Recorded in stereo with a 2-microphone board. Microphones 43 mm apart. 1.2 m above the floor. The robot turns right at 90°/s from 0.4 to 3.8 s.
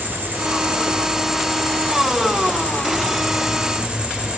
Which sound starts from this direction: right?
An insect, at 0.0 s.